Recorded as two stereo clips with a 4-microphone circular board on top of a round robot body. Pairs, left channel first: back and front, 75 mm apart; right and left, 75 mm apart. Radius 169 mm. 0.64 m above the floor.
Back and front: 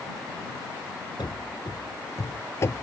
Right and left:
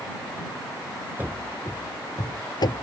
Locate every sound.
1.2 s running footsteps: 155° left; by 2.8 s 120° right